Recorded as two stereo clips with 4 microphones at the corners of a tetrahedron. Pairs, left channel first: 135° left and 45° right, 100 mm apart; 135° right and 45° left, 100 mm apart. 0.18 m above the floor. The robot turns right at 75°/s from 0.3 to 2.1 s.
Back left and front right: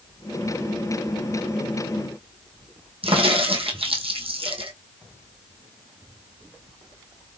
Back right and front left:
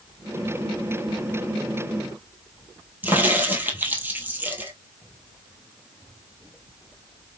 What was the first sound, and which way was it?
A crack, 25° right.